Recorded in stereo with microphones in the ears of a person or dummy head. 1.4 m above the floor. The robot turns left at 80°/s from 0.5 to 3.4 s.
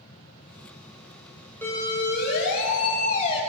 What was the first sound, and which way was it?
A siren, 10° left (ahead or behind).